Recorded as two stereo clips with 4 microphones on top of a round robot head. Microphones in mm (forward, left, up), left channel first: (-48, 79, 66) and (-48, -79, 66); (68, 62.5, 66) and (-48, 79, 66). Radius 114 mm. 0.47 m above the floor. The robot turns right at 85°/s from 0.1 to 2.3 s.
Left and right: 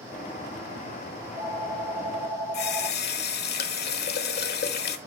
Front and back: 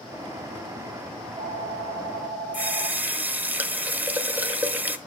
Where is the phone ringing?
135° right, 5 m; by 3.5 s 40° right, 5 m.